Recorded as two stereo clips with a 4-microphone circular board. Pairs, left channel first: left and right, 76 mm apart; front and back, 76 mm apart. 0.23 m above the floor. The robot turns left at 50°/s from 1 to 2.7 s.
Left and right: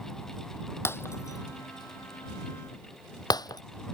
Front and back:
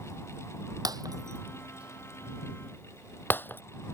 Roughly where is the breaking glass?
Behind left.